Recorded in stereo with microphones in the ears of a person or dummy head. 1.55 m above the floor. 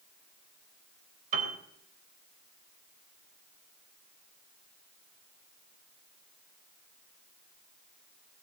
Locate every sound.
1.3 s a piano: 40° right (ahead or behind), 3 m